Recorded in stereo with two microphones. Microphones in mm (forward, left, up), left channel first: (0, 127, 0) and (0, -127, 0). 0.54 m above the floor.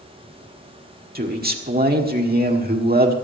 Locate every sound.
1.1 s a man speaking: 35° right (ahead or behind), 1.5 m